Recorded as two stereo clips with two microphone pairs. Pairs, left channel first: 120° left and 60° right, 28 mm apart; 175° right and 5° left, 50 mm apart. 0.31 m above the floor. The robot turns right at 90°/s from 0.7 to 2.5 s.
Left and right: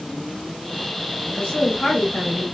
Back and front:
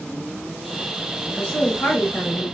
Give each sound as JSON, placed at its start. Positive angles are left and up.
{"t": 1.3, "sound": "a woman speaking", "azimuth_deg": 125, "distance_m": 1.7}